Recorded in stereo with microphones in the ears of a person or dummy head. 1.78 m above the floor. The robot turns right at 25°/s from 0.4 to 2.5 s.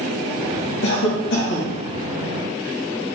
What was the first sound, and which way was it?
A cough, 85° left.